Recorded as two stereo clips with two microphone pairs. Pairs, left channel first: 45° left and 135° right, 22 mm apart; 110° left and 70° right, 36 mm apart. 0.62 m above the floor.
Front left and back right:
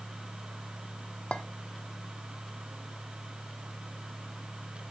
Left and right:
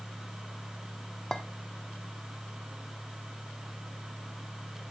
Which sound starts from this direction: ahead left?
A clink, at 1.3 s.